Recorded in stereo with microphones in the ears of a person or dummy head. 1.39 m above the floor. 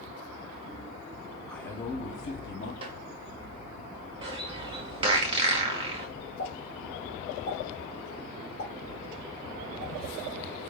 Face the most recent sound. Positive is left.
turn(degrees=65)  # may be behind; listen again after turning